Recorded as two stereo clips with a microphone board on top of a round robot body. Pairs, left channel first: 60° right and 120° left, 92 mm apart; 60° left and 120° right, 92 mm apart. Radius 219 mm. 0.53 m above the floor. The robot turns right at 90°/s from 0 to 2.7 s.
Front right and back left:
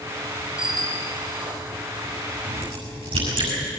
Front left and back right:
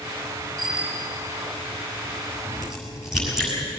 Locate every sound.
0.6 s a bicycle bell: 140° left, 2.5 m; by 1.1 s 170° right, 2.5 m
2.4 s a crack: 120° left, 6.5 m; by 3.5 s 150° left, 6.5 m